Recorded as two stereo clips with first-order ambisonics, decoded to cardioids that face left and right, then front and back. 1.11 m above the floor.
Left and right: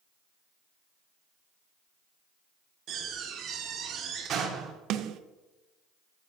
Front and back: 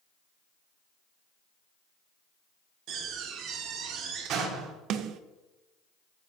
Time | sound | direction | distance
2.9 | a door slam | 140° right | 1.5 m
4.9 | a snare drum | 135° right | 0.6 m